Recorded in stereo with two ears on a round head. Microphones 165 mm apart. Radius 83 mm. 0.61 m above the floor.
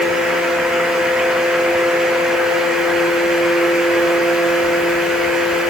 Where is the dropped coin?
I don't hear a dropped coin.